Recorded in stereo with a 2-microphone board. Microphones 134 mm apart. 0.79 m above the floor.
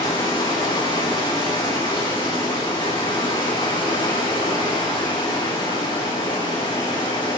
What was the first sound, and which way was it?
Running water, 40° left (ahead or behind).